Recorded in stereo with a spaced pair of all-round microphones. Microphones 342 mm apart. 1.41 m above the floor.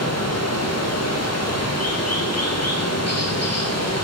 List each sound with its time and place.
0.0 s running water: 45° left (ahead or behind), 1.2 m